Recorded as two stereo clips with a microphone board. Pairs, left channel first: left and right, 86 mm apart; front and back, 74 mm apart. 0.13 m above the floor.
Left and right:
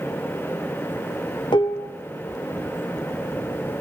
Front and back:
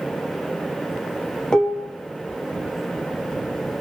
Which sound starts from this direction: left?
Dishes clattering, at 1.5 s.